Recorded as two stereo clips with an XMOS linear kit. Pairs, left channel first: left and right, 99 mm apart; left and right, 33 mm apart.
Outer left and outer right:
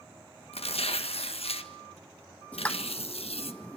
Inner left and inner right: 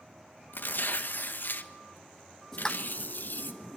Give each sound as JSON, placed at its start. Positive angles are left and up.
{"t": 0.5, "sound": "tearing paper", "side_deg": 80, "distance_m": 1.5}
{"t": 2.5, "sound": "a pop", "side_deg": 15, "distance_m": 1.1}